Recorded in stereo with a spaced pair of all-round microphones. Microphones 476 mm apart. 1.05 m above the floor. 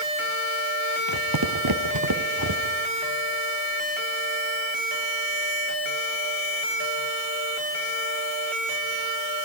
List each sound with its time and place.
1.1 s footsteps: 45° right (ahead or behind), 1.6 m; by 2.8 s 40° right (ahead or behind), 1.9 m